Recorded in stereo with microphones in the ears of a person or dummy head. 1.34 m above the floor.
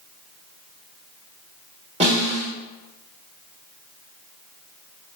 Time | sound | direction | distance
2.0 | a snare drum | 30° right (ahead or behind) | 1.4 m